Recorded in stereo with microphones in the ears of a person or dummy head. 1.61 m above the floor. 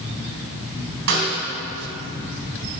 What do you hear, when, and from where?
1.1 s a snare drum: 65° right (ahead or behind), 2 m